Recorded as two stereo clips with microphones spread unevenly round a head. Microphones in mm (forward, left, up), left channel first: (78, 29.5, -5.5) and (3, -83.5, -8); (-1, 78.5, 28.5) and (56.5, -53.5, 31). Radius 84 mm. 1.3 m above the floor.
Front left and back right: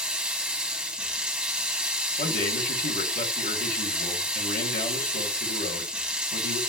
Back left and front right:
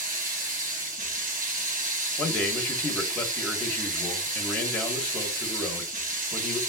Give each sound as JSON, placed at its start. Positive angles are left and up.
{"t": 0.0, "sound": "running water", "azimuth_deg": -40, "distance_m": 1.0}
{"t": 2.2, "sound": "a man speaking", "azimuth_deg": 35, "distance_m": 1.4}